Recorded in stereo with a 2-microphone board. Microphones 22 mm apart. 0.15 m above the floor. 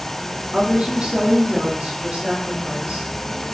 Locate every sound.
0.5 s a woman speaking: 65° right (ahead or behind), 3.5 m; by 3.1 s 80° right, 6.5 m